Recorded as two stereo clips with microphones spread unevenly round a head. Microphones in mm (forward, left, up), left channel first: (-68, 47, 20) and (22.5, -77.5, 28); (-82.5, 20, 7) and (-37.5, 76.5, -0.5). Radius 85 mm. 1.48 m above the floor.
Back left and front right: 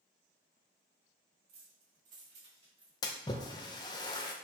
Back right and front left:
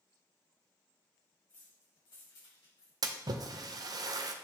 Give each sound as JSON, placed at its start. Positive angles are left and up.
{"t": 1.5, "sound": "keys jangling", "azimuth_deg": -70, "distance_m": 1.9}
{"t": 3.0, "sound": "a splash", "azimuth_deg": 60, "distance_m": 0.7}